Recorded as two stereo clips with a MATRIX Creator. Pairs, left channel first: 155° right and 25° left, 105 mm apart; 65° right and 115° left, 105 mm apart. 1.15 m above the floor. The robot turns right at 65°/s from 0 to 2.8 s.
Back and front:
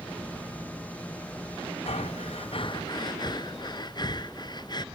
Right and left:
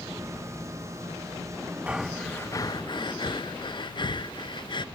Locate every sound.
1.9 s breathing: 170° right, 0.7 m; by 4.8 s 110° right, 0.7 m